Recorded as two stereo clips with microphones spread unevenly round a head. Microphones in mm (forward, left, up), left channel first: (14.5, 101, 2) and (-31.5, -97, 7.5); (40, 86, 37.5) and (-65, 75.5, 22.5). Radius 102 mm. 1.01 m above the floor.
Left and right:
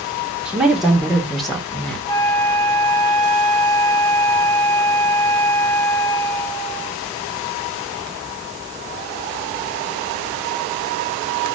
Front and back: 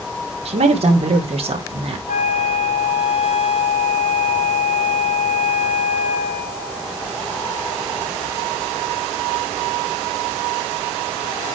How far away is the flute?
About 3 m.